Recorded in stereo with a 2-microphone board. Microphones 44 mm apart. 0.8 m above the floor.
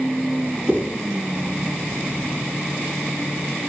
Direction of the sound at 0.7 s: 30° right (ahead or behind).